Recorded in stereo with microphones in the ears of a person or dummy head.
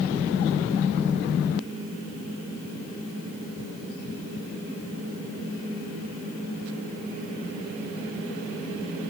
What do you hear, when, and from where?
Only background noise.